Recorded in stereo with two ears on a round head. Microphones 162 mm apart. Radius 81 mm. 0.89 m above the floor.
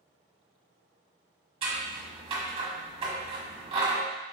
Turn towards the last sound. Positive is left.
turn(degrees=-30)  # may be behind; listen again after turning